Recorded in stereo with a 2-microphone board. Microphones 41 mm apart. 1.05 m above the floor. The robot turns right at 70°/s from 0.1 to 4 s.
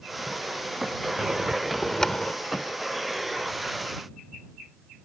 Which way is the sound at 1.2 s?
45° right.